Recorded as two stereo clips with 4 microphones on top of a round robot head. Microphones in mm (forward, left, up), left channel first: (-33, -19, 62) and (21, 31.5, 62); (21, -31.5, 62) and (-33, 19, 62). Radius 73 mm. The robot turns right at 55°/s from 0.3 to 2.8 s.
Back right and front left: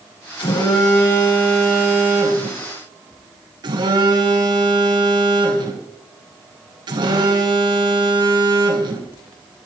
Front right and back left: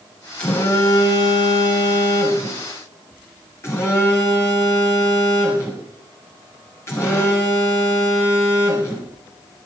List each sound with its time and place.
0.4 s a phone buzzing: 120° right, 6 m; by 9.1 s 15° left, 6 m